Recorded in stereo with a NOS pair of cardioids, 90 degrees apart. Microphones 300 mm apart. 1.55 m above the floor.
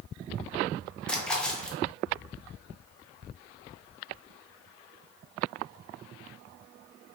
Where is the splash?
5° left, 1.0 m.